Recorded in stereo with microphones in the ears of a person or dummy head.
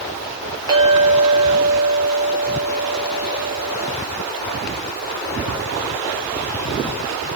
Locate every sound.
0.7 s a clink: 30° right (ahead or behind), 1.1 m